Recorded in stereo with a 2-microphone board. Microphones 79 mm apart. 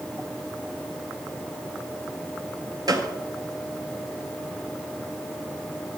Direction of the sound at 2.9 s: 55° right (ahead or behind).